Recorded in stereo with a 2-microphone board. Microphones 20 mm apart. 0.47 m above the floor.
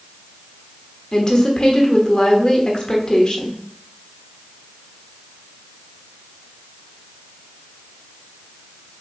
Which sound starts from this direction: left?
A woman speaking, at 1.1 s.